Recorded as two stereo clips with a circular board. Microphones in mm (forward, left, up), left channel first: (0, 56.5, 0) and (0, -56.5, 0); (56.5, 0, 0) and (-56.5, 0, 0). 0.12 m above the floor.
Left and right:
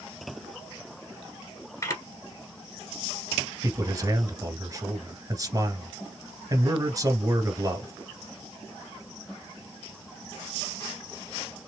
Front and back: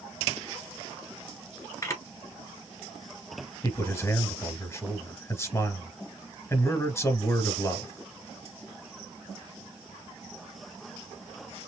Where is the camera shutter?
50° left, 1.3 m.